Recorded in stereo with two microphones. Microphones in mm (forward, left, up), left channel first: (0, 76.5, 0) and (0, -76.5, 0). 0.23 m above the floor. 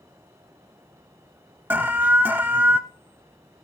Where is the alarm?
15° right (ahead or behind), 0.6 m.